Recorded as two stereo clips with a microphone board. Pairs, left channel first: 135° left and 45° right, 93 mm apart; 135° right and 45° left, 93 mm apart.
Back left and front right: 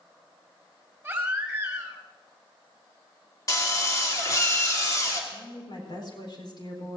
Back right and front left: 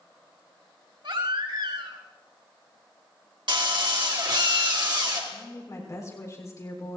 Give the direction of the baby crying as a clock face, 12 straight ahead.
11 o'clock.